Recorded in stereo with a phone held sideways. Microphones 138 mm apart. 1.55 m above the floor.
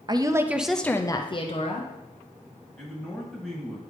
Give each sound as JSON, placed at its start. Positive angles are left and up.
{"t": 0.1, "sound": "a woman speaking", "side_deg": -30, "distance_m": 0.6}
{"t": 2.8, "sound": "a man speaking", "side_deg": 5, "distance_m": 2.0}